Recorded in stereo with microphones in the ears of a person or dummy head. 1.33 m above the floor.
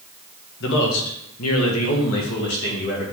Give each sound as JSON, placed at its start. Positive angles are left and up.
{"t": 0.6, "sound": "a man speaking", "side_deg": 65, "distance_m": 1.6}